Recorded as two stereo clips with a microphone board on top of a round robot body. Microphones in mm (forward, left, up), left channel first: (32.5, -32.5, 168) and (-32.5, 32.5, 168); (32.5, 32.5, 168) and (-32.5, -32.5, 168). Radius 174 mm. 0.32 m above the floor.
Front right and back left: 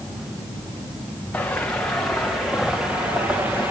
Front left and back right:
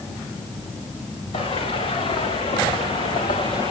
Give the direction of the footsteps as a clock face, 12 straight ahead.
11 o'clock.